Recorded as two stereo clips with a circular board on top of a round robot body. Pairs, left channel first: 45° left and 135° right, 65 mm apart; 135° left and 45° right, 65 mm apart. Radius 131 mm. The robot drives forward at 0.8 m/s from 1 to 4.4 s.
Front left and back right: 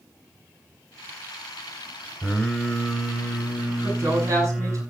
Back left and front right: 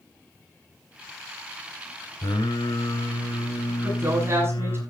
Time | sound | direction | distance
2.2 | singing | 120° left | 5 m
3.8 | a woman speaking | 90° right | 8 m